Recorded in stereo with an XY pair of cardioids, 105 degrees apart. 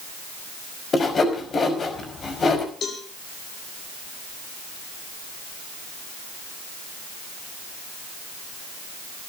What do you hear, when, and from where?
0.9 s sawing: 40° left, 5 m
2.8 s a cowbell: 60° left, 4.5 m